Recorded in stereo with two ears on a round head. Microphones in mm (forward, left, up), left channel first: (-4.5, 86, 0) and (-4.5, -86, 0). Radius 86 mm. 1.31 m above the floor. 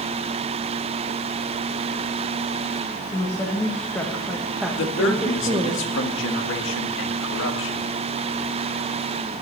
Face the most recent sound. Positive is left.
turn(degrees=65)  # may be behind; listen again after turning